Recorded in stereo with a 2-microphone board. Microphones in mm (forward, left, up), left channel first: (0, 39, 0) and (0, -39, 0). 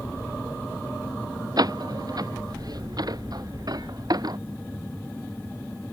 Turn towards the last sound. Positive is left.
turn(degrees=-55)  # may be behind; listen again after turning